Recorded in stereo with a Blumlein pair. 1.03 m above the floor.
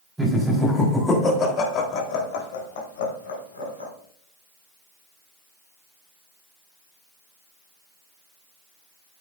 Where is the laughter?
Straight ahead, 4 m; by 3.9 s 75° left, 5 m.